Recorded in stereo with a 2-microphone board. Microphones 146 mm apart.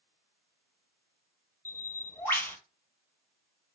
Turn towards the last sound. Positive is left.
turn(degrees=15)  # may be behind; listen again after turning